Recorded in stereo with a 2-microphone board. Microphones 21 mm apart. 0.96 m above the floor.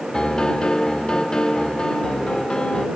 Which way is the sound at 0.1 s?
45° left (ahead or behind).